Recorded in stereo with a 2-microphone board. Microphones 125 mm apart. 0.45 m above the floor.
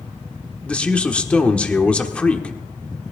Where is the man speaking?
10° left (ahead or behind), 1.1 m.